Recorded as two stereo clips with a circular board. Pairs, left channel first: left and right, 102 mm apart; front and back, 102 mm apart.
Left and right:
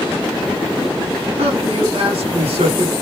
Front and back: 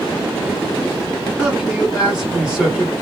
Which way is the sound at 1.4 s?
95° right.